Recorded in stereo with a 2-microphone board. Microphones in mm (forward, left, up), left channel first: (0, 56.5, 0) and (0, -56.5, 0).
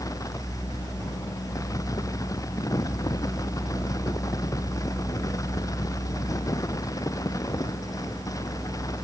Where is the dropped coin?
I don't hear a dropped coin.